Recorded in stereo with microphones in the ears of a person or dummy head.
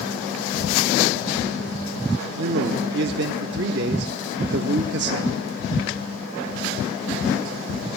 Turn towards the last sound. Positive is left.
turn(degrees=-65)  # may be behind; listen again after turning